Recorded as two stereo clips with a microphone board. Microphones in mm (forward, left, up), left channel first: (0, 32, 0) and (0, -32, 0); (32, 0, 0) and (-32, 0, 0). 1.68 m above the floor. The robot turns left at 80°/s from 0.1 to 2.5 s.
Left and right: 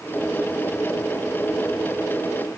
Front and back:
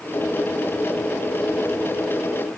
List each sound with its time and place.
Only background noise.